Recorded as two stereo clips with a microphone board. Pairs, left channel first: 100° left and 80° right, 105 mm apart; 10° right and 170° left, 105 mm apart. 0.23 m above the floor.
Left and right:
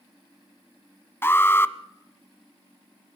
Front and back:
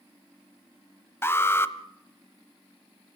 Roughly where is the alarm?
Ahead left.